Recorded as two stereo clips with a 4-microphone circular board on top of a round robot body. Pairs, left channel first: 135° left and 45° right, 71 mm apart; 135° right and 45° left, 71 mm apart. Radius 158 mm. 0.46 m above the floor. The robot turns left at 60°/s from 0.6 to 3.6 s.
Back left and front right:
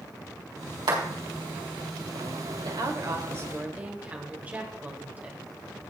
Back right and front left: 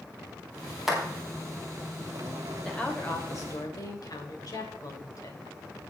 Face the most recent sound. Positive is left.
turn(degrees=-110)